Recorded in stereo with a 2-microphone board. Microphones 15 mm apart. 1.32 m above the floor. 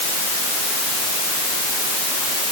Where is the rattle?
No rattle in this recording.